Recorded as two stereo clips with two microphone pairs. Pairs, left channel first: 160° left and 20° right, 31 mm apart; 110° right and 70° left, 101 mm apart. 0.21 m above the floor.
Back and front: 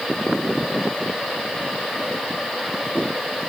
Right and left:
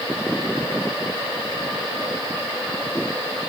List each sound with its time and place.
Only background noise.